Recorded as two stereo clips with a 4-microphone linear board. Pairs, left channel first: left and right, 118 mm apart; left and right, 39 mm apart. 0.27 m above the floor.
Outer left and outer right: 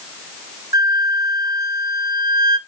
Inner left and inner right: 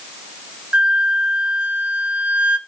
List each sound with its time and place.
0.7 s a flute: 30° right (ahead or behind), 0.8 m